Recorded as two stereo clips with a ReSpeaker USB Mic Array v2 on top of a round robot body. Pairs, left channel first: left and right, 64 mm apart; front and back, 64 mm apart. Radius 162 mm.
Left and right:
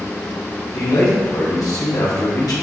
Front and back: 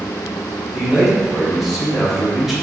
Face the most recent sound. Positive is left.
turn(degrees=95)